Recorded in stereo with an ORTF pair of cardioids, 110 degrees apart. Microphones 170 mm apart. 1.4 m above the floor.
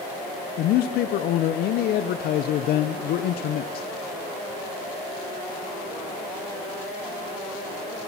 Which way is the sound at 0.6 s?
65° left.